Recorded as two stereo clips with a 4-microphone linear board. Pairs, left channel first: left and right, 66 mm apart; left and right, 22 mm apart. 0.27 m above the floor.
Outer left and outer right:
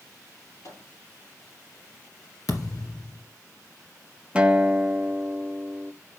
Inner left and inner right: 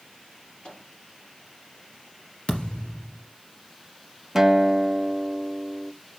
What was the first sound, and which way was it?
A microwave, 60° left (ahead or behind).